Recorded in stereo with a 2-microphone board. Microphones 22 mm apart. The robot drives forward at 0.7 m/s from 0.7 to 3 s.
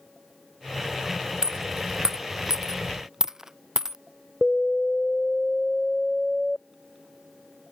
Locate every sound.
1.4 s a dropped coin: 35° right (ahead or behind); by 4.0 s 30° right (ahead or behind)
4.4 s an alarm: 35° left (ahead or behind)